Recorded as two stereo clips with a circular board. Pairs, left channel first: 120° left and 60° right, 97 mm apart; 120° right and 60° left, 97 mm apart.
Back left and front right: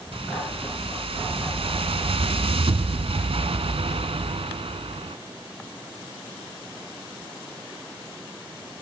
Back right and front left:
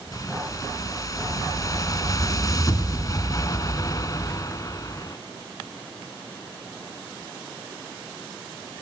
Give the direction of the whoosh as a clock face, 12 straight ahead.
2 o'clock.